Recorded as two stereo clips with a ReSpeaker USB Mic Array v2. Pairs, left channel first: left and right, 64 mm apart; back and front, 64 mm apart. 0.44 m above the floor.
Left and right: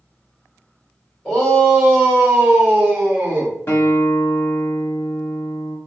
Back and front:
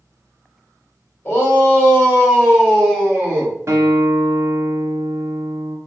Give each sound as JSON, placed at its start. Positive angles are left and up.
{"t": 1.2, "sound": "a shout", "azimuth_deg": 145, "distance_m": 1.7}
{"t": 3.7, "sound": "a guitar", "azimuth_deg": 45, "distance_m": 1.2}